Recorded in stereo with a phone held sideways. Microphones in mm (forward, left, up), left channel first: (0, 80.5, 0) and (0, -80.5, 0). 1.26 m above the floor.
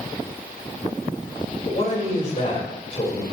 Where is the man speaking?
45° left (ahead or behind), 5 m.